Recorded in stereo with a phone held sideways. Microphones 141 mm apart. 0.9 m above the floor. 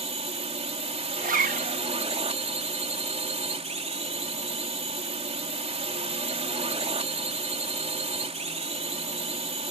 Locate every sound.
0.0 s a drone: 45° right (ahead or behind)
1.2 s a zipper: 70° right (ahead or behind)